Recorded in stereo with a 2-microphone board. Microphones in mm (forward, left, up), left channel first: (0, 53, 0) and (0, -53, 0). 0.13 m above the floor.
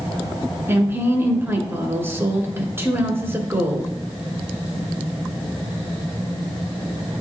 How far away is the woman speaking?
About 1.3 m.